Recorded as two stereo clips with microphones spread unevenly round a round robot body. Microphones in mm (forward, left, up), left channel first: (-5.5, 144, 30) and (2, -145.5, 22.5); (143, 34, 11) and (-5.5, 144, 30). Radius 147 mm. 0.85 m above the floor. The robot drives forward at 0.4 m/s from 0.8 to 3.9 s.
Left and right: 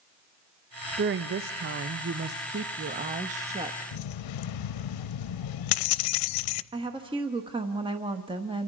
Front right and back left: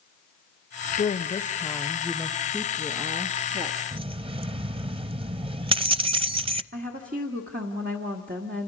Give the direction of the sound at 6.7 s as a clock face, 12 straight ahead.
5 o'clock.